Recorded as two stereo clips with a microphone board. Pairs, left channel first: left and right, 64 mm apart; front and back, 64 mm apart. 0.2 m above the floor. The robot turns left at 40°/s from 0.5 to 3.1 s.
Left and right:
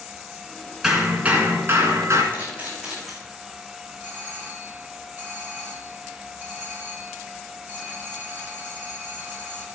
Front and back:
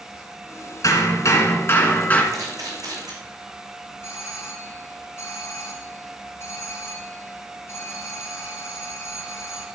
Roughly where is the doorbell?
Ahead right.